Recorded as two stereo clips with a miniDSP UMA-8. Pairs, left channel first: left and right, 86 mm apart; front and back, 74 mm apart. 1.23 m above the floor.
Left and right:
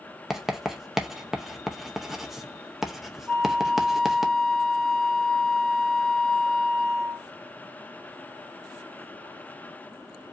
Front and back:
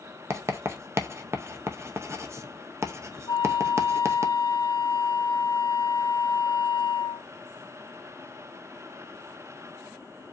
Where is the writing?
175° right, 0.7 m.